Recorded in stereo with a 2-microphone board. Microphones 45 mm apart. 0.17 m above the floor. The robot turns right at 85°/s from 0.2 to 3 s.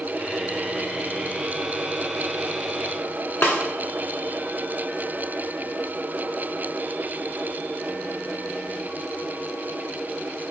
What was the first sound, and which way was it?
A snare drum, 45° left (ahead or behind).